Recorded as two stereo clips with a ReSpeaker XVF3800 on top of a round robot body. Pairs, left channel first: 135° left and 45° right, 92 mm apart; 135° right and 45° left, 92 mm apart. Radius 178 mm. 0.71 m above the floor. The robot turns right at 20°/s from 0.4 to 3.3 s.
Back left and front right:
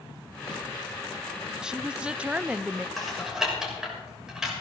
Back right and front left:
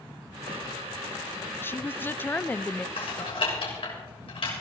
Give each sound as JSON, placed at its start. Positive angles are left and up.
{"t": 1.6, "sound": "a woman speaking", "azimuth_deg": -115, "distance_m": 0.6}
{"t": 3.0, "sound": "typing on a keyboard", "azimuth_deg": -135, "distance_m": 6.5}